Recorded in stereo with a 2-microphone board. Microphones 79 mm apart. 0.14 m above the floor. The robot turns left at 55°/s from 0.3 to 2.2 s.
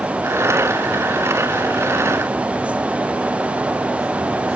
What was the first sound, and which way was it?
Only background noise.